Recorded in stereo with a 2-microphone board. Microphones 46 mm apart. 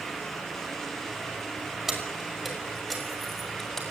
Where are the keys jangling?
5° right (ahead or behind), 5.5 m; by 3.8 s 10° left (ahead or behind), 7 m.